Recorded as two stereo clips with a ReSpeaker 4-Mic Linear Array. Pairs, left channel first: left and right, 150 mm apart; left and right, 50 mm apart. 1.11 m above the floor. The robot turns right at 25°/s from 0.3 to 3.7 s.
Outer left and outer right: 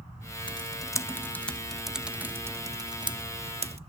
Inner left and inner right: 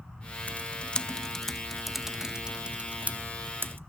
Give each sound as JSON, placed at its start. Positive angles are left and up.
{"t": 0.5, "sound": "typing on a keyboard", "side_deg": 35, "distance_m": 0.7}